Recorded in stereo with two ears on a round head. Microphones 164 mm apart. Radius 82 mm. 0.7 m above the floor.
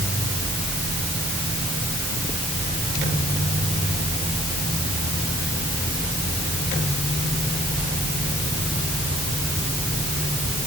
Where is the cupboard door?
No cupboard door in this recording.